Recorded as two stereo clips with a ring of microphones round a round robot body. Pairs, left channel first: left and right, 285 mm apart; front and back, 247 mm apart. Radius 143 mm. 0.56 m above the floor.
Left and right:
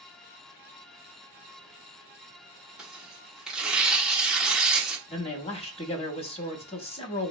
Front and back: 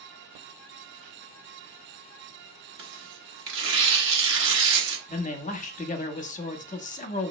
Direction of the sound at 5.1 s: 35° left.